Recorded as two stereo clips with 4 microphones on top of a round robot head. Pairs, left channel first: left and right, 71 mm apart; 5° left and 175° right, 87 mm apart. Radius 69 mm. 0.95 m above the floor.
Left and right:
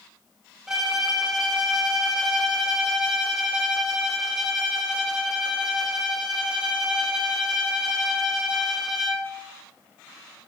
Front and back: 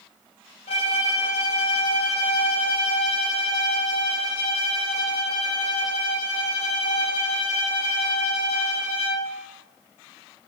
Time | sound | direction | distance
0.7 | a violin | 5° right | 3 m